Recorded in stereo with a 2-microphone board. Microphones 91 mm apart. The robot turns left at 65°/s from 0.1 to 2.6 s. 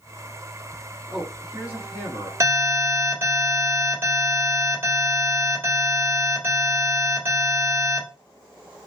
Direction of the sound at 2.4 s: 30° right (ahead or behind).